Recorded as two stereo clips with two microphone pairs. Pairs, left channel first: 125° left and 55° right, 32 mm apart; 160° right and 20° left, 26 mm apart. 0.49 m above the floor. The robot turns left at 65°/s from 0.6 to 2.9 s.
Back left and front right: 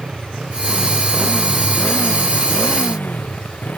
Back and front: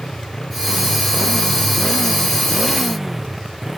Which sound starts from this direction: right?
A motorcycle, at 0.0 s.